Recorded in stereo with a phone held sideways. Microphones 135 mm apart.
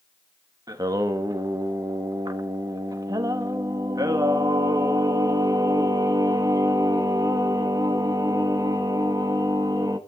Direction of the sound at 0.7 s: 25° right (ahead or behind).